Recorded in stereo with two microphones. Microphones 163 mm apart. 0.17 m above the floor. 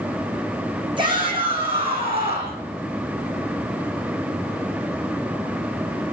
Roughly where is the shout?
Right.